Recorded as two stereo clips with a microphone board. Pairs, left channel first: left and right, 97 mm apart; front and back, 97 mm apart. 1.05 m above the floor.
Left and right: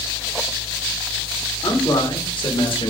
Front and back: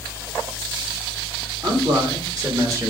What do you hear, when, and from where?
1.6 s a man speaking: 135° left, 2.0 m; by 2.9 s 120° left, 1.4 m